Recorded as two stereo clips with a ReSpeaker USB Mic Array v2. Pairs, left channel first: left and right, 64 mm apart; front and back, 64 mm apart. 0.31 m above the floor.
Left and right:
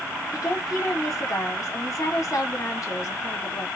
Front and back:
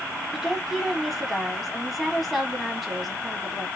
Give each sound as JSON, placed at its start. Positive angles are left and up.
{"t": 0.3, "sound": "a woman speaking", "azimuth_deg": 90, "distance_m": 2.0}